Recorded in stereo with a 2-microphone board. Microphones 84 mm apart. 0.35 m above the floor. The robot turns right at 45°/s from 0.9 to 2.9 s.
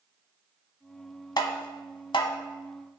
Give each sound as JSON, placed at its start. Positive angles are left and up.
{"t": 1.4, "sound": "tapping", "side_deg": 55, "distance_m": 0.9}